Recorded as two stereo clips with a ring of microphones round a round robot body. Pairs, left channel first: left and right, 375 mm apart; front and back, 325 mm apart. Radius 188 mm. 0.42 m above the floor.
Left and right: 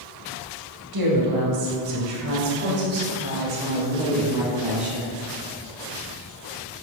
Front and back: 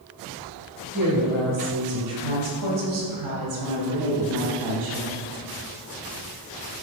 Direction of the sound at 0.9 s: 110° right.